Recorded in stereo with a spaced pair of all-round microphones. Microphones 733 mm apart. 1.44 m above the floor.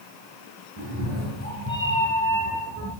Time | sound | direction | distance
0.8 | a cat meowing | 20° right (ahead or behind) | 5.5 m